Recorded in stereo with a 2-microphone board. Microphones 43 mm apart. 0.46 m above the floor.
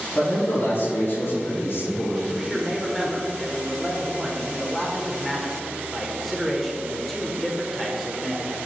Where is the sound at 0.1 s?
65° left (ahead or behind), 2.5 m; by 2.2 s 75° left (ahead or behind), 4.5 m.